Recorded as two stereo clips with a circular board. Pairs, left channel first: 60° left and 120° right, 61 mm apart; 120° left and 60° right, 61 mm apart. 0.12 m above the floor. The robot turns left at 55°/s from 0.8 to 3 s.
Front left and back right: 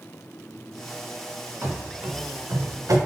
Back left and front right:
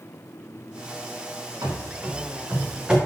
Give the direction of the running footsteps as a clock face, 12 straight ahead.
2 o'clock.